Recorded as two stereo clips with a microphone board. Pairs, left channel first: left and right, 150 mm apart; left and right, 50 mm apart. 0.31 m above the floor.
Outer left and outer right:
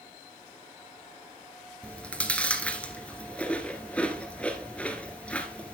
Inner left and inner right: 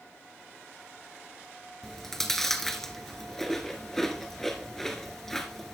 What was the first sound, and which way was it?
Chewing, 10° left (ahead or behind).